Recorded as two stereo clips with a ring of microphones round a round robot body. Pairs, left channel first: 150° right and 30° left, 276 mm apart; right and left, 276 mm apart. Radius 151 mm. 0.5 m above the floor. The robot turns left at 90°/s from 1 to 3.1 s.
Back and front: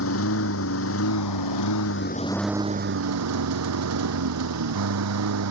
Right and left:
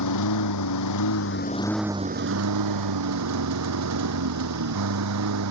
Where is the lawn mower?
110° right; by 5.5 s 60° left.